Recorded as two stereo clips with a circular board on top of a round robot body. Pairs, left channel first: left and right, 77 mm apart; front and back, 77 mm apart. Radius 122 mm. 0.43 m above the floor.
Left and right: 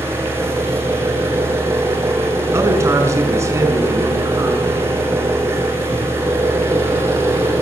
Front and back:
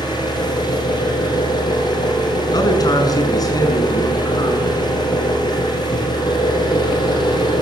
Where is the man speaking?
35° right, 6 m.